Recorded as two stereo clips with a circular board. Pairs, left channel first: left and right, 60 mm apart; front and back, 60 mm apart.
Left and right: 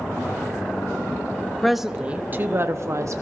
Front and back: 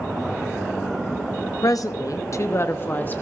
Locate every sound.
1.6 s a woman speaking: 5° left, 0.7 m; by 3.2 s 60° right, 1.0 m